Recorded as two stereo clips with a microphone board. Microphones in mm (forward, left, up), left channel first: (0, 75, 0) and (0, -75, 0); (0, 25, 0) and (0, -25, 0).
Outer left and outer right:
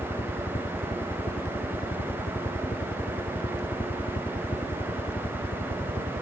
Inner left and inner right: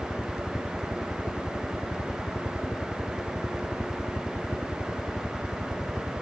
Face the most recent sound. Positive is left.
turn(degrees=65)  # may be behind; listen again after turning